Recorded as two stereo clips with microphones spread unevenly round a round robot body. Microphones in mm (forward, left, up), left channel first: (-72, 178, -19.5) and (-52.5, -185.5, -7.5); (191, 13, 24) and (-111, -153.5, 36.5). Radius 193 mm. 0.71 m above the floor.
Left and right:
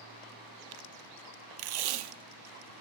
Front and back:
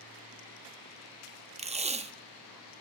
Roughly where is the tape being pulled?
Right.